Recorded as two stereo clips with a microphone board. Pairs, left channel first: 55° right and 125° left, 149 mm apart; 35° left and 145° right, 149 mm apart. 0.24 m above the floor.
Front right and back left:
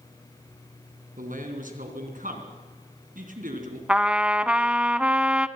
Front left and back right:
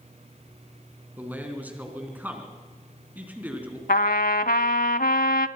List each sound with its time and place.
1.2 s a man speaking: 135° left, 3.5 m
3.9 s a trumpet: 40° left, 0.7 m